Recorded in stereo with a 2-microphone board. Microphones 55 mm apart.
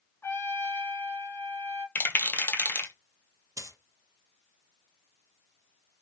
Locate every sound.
0.2 s a trumpet: 50° left (ahead or behind), 1.9 m
1.9 s a rattle: 40° left (ahead or behind), 0.9 m
3.6 s a dropped coin: 85° right, 0.7 m